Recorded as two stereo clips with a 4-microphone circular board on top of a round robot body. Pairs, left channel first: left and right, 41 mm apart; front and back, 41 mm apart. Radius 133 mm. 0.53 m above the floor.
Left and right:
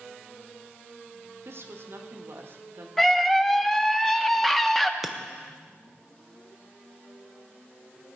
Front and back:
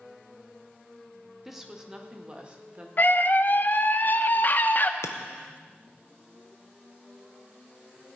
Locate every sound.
1.4 s a woman speaking: 95° right, 1.6 m; by 2.9 s 120° right, 2 m
3.0 s a scream: 10° left, 1.1 m
5.0 s breaking glass: straight ahead, 0.6 m